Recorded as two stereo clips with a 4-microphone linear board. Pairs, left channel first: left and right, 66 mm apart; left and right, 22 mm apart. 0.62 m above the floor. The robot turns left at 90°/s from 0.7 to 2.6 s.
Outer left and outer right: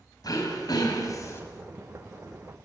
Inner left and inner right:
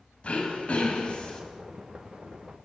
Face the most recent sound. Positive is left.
turn(degrees=-70)